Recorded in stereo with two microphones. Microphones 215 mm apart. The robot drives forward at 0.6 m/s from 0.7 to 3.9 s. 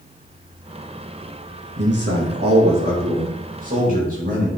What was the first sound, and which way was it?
A man speaking, 55° right (ahead or behind).